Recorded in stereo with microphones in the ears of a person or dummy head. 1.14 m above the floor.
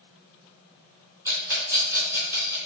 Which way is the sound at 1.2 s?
15° right (ahead or behind).